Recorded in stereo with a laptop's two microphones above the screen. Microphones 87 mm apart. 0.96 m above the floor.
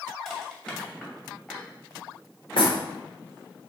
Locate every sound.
0.2 s crushing: 10° left (ahead or behind), 2.5 m
2.6 s knocking: 75° left (ahead or behind), 2 m